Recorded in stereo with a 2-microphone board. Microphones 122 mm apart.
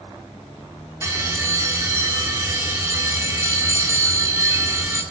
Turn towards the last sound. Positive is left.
turn(degrees=-25)  # may be behind; listen again after turning